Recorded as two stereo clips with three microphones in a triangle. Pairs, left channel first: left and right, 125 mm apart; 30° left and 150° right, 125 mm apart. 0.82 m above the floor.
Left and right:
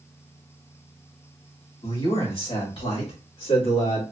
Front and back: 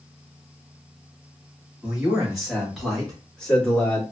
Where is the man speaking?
125° left, 3 m; by 4.0 s 105° left, 2.5 m.